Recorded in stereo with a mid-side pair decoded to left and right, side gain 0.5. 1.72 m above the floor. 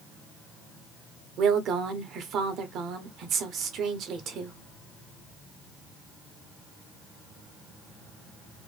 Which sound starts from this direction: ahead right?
A woman speaking, at 1.4 s.